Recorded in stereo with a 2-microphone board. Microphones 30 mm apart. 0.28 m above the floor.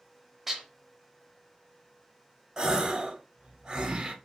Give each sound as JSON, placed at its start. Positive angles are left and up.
{"t": 0.5, "sound": "dishes clattering", "side_deg": -5, "distance_m": 0.6}
{"t": 2.6, "sound": "a gasp", "side_deg": -25, "distance_m": 0.6}